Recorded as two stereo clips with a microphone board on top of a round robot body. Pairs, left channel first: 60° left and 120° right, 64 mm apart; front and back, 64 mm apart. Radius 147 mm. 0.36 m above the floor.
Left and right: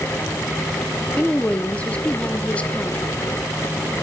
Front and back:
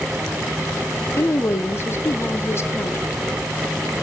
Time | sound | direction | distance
1.2 | a woman speaking | straight ahead | 1.4 m